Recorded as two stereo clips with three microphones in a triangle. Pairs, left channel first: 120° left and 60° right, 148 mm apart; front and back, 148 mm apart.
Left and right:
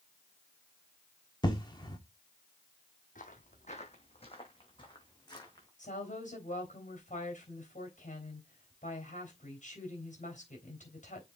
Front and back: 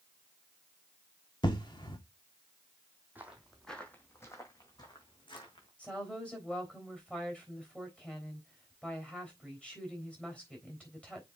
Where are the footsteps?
105° left, 1.6 m; by 5.7 s 55° left, 3 m.